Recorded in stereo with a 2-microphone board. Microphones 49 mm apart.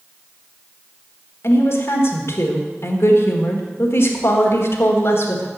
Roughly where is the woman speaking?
Left.